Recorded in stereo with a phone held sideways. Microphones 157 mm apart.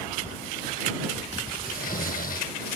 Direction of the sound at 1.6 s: 70° left (ahead or behind).